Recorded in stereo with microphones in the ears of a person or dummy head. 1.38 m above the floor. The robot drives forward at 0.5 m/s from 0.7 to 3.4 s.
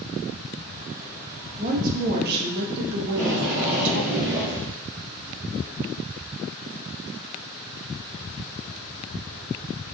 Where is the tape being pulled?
60° right (ahead or behind), 3.5 m.